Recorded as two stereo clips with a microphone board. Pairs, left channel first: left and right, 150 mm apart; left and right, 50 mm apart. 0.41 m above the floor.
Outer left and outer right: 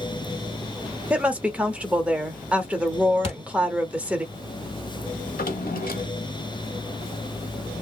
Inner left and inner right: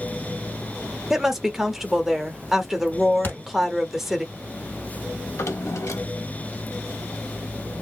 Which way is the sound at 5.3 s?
80° left.